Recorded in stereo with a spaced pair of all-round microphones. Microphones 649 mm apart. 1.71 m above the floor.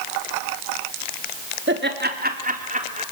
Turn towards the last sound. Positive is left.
turn(degrees=-10)  # may be behind; listen again after turning